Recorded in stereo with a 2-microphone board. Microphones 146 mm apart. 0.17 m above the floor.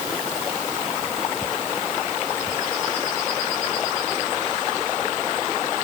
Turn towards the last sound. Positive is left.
No sound to turn to.